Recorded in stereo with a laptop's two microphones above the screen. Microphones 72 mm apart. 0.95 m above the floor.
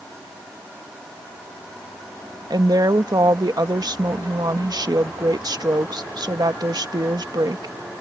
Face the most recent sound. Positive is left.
turn(degrees=-65)  # may be behind; listen again after turning